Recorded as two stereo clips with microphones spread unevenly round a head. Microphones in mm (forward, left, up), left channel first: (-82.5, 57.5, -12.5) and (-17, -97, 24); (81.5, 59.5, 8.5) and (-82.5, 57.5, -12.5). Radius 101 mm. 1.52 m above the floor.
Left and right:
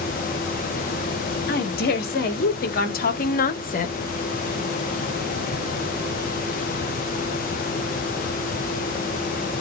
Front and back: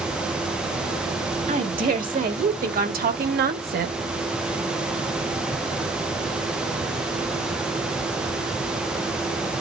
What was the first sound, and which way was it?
A woman speaking, 140° left.